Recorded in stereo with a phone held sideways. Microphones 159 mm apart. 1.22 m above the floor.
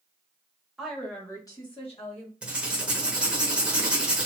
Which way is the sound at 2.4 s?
5° right (ahead or behind).